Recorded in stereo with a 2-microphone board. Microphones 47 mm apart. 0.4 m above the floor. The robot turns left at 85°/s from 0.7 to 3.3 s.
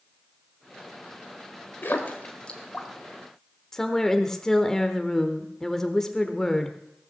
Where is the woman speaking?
10° left (ahead or behind), 0.9 m.